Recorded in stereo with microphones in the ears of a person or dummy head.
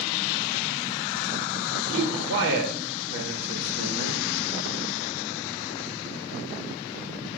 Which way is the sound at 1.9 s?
70° right (ahead or behind).